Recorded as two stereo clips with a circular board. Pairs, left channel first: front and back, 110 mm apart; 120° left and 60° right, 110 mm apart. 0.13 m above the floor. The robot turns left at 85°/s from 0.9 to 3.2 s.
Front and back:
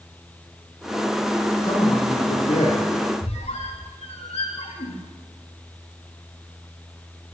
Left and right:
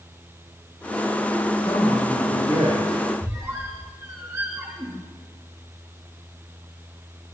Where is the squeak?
5° left, 5.5 m.